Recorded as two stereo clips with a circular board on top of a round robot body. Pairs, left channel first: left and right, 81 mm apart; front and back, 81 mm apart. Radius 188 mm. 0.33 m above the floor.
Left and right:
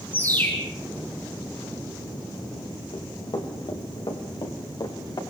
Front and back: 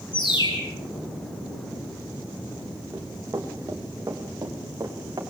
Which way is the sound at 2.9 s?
120° left.